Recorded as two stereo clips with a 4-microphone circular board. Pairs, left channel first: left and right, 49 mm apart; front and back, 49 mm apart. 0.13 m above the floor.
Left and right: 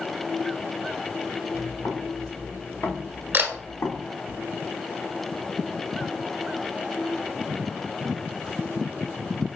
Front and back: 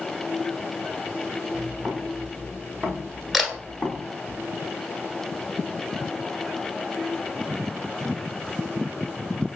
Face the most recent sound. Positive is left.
turn(degrees=-90)